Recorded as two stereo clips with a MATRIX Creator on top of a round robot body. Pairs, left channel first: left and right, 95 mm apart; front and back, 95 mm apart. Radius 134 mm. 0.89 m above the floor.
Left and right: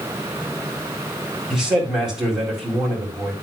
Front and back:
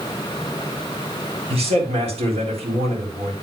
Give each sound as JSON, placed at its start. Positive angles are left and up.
{"t": 1.5, "sound": "a man speaking", "azimuth_deg": -175, "distance_m": 4.0}